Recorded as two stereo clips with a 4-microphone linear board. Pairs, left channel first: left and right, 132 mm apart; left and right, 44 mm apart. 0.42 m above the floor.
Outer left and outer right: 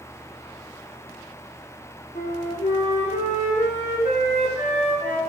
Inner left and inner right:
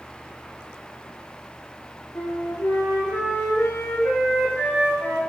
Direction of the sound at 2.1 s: 75° left (ahead or behind).